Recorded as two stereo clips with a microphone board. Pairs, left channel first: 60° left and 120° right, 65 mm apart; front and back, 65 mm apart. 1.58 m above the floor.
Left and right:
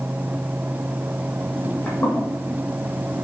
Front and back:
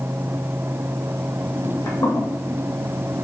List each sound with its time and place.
1.6 s footsteps: straight ahead, 3.5 m